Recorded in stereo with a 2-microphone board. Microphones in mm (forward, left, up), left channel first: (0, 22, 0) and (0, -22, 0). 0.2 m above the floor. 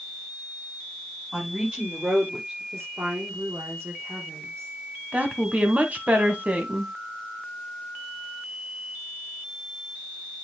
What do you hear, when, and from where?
1.3 s a woman speaking: 20° right (ahead or behind), 5.5 m; by 2.6 s 30° right (ahead or behind), 5.5 m
2.7 s a woman speaking: 70° right (ahead or behind), 4 m
5.1 s a woman speaking: 30° right (ahead or behind), 1.7 m